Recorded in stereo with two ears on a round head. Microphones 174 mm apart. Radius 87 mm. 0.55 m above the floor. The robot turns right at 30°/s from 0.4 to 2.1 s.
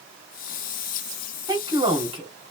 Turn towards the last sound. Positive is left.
turn(degrees=-30)  # may be behind; listen again after turning